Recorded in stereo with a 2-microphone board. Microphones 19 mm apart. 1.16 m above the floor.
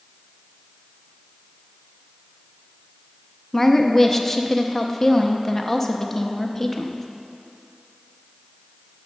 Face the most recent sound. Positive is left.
turn(degrees=15)  # may be behind; listen again after turning